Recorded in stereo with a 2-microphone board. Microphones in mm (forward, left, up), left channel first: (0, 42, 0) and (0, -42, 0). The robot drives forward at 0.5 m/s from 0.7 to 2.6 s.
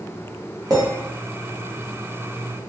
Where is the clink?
50° right (ahead or behind), 1.0 m; by 0.8 s 45° right (ahead or behind), 1.0 m.